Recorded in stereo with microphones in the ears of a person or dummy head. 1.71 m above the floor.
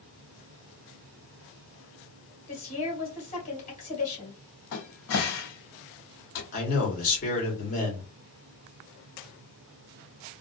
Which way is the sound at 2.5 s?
40° left (ahead or behind).